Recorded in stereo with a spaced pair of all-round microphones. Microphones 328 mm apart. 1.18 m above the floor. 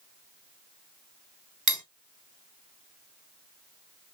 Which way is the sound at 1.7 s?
65° right (ahead or behind).